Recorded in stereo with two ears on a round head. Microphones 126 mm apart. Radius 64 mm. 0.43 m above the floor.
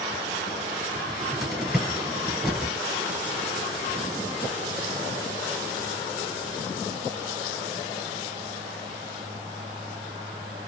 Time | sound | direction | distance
0.9 | a cupboard door | centre (ahead or behind) | 2.5 m